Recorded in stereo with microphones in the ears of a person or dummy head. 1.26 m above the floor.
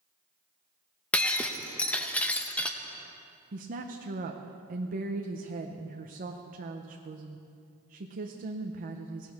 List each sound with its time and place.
1.1 s breaking glass: 5° left (ahead or behind), 0.6 m
3.5 s a woman speaking: 40° right (ahead or behind), 0.7 m